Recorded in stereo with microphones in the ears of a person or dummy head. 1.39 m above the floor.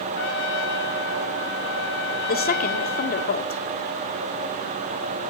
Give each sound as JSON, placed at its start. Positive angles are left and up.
{"t": 0.1, "sound": "a trumpet", "side_deg": 85, "distance_m": 1.5}
{"t": 2.3, "sound": "a woman speaking", "side_deg": 45, "distance_m": 2.0}